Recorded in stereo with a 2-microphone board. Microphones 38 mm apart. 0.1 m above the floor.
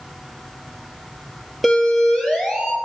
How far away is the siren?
About 3.5 m.